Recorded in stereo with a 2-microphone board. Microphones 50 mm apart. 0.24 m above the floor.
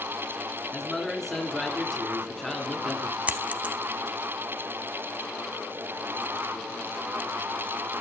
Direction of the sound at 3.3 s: 30° right (ahead or behind).